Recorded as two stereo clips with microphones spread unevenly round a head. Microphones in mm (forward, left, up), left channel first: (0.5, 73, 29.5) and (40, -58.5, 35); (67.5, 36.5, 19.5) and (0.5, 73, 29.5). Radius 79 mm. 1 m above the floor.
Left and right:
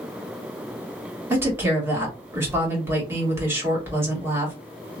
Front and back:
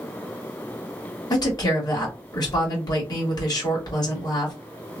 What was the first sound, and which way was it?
A woman speaking, straight ahead.